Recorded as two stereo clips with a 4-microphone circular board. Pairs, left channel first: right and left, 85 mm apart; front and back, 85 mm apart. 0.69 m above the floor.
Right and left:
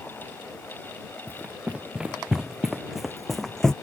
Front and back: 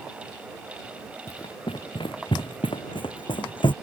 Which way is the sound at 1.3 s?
15° left.